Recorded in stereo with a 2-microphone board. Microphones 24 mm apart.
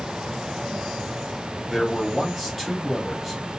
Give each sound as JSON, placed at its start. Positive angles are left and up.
{"t": 1.7, "sound": "a man speaking", "side_deg": 0, "distance_m": 1.1}